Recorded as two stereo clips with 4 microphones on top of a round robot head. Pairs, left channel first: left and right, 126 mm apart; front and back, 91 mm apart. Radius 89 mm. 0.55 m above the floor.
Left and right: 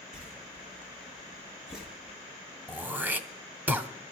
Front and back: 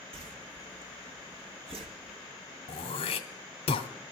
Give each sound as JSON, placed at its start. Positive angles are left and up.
{"t": 0.1, "sound": "a whoosh", "azimuth_deg": -175, "distance_m": 1.1}
{"t": 2.7, "sound": "throat clearing", "azimuth_deg": -15, "distance_m": 0.8}